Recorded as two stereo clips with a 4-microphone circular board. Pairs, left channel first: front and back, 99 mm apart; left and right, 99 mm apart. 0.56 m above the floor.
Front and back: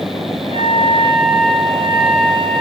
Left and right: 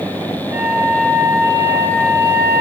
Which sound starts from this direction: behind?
A flute, at 0.5 s.